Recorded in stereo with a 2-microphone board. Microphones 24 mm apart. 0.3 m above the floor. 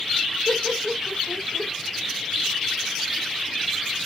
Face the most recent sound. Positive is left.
turn(degrees=-40)  # may be behind; listen again after turning